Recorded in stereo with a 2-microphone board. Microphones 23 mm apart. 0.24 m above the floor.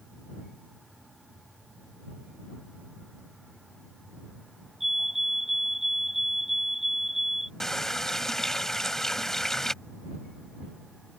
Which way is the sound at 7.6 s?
20° left (ahead or behind).